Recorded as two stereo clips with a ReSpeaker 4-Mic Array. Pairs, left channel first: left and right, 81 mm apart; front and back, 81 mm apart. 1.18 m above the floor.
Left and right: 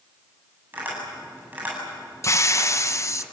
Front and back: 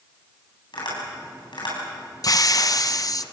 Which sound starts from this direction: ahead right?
Tapping, at 0.7 s.